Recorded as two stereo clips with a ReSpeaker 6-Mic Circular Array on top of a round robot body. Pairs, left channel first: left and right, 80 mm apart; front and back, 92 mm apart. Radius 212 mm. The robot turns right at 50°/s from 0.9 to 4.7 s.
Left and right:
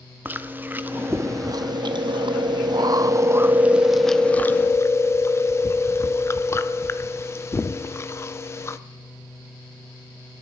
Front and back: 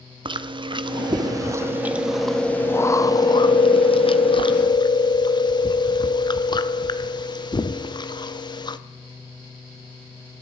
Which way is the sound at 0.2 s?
155° right.